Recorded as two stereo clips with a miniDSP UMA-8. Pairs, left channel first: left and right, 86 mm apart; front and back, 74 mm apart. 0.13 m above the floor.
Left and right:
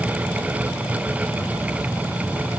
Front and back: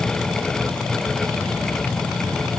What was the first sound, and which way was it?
Only background noise.